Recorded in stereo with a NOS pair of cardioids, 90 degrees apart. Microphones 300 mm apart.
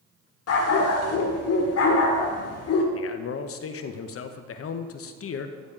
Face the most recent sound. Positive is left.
turn(degrees=50)